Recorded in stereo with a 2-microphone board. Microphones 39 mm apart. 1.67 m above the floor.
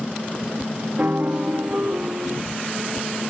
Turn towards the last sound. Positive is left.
turn(degrees=-50)  # may be behind; listen again after turning